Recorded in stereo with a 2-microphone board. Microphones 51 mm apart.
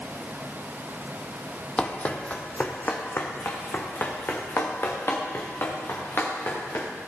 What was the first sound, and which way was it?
Running footsteps, 20° left (ahead or behind).